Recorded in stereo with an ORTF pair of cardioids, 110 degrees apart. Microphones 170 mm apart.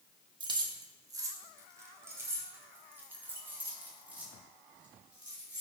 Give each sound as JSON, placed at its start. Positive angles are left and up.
{"t": 0.4, "sound": "keys jangling", "azimuth_deg": -30, "distance_m": 1.6}